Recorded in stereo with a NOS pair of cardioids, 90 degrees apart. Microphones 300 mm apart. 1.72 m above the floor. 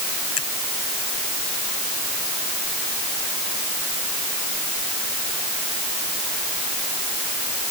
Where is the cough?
I don't hear a cough.